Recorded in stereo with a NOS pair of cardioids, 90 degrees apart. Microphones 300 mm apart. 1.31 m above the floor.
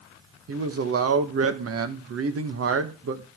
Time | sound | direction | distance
0.5 | a man speaking | 45° right | 1.5 m